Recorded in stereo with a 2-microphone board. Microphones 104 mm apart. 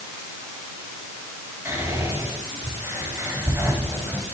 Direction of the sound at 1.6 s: 25° right (ahead or behind).